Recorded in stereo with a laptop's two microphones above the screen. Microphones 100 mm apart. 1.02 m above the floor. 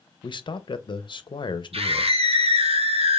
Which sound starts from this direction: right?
A scream, at 1.7 s.